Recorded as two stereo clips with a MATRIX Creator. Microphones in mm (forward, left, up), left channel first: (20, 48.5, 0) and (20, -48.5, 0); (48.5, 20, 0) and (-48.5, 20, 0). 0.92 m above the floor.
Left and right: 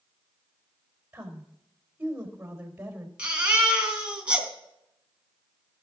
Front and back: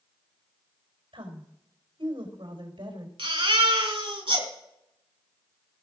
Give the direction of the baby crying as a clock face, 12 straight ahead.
6 o'clock.